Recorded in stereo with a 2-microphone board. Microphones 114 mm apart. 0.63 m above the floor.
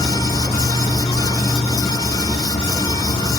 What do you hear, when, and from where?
0.0 s an insect: 65° left (ahead or behind), 1.4 m